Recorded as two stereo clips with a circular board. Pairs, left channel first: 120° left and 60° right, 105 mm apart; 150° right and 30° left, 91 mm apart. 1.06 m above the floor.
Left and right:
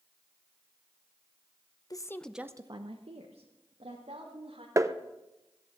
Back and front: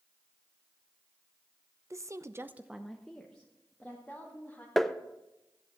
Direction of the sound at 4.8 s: 65° right.